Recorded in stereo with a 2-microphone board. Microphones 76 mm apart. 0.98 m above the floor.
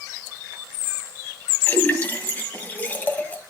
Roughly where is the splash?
Left.